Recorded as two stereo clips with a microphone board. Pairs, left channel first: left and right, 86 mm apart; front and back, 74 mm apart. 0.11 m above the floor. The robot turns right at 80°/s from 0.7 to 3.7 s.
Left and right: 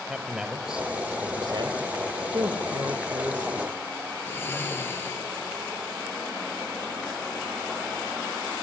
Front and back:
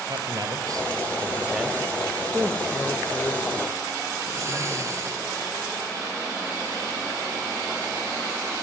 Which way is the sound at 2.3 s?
125° right.